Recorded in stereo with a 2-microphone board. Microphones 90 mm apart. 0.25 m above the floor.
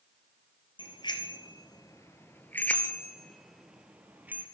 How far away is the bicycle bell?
About 3.5 m.